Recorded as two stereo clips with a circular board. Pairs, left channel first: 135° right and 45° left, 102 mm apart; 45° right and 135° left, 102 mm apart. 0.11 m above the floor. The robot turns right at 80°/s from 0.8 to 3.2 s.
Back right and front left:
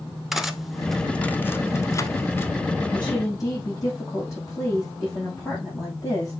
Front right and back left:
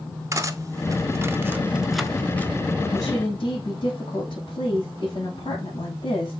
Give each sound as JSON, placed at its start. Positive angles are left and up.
{"t": 0.3, "sound": "cutlery clinking", "azimuth_deg": 130, "distance_m": 0.7}
{"t": 2.9, "sound": "a woman speaking", "azimuth_deg": -100, "distance_m": 5.0}